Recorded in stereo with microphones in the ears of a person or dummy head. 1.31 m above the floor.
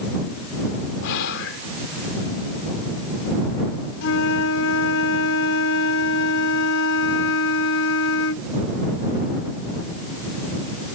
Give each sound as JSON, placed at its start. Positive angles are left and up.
{"t": 1.0, "sound": "whispering", "side_deg": 70}
{"t": 4.0, "sound": "a flute", "side_deg": 75}